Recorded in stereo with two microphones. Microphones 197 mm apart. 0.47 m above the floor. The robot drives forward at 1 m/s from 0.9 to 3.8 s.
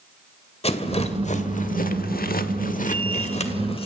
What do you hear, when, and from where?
0.6 s a rattle: 30° left (ahead or behind), 1.9 m